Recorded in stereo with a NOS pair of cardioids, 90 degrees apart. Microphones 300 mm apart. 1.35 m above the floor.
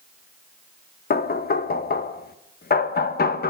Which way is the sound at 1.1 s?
30° left.